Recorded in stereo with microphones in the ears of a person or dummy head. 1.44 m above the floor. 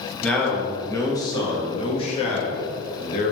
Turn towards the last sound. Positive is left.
turn(degrees=50)  # may be behind; listen again after turning